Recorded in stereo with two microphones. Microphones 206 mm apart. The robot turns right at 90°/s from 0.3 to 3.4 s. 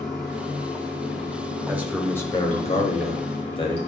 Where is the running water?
160° right, 4 m; by 3.9 s 120° left, 4 m.